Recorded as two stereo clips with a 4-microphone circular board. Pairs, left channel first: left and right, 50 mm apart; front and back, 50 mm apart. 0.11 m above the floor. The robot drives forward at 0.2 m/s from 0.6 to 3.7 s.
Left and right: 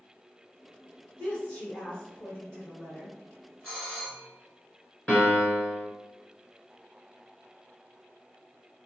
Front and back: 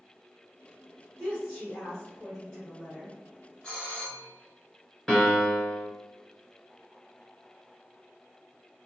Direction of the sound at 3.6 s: 45° left.